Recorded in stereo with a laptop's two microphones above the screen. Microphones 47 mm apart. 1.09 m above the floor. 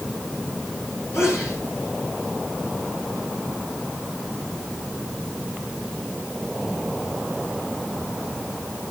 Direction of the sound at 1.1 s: 80° left.